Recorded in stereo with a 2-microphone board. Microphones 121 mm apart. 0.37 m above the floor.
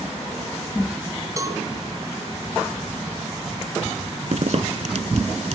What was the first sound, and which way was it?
A cowbell, 30° right (ahead or behind).